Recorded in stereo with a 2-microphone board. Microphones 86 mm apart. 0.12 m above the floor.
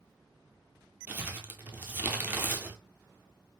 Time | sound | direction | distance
1.1 | crumpling | 20° right (ahead or behind) | 0.6 m